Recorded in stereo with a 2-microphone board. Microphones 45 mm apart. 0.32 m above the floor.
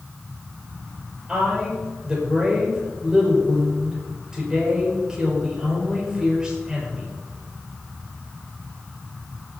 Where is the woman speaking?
10° right (ahead or behind), 5.5 m.